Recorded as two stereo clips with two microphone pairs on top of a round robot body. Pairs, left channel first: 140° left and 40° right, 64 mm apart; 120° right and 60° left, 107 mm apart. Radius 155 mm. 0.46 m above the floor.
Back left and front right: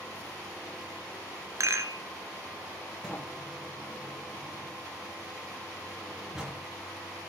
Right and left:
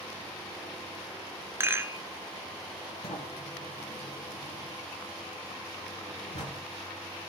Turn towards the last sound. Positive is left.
turn(degrees=-125)